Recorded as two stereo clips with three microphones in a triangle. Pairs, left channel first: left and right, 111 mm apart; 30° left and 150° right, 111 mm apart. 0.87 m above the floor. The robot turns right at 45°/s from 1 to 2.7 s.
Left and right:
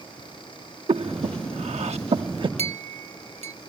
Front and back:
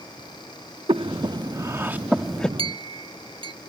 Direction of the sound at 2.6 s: 110° right.